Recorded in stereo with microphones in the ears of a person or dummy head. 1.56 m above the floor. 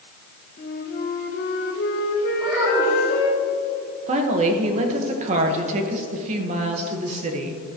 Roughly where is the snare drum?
I don't hear a snare drum.